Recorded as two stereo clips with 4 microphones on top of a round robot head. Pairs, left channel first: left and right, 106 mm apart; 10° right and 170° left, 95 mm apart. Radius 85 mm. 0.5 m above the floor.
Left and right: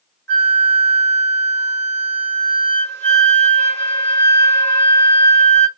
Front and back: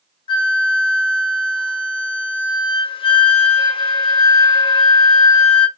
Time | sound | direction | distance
0.3 | a flute | 20° left | 1.2 m